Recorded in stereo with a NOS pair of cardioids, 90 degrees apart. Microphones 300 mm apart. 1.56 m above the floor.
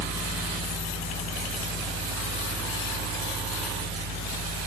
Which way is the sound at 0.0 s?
50° right.